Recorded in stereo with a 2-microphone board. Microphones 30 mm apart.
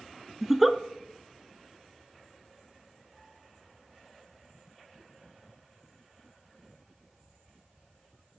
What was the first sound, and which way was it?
A giggle, 5° right (ahead or behind).